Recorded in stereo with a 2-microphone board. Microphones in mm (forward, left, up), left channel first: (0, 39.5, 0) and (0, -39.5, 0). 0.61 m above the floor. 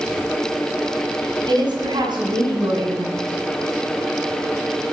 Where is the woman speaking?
75° right (ahead or behind), 4.5 m.